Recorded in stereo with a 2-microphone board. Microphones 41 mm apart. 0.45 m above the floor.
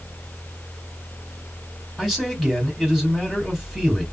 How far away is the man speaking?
About 1.8 m.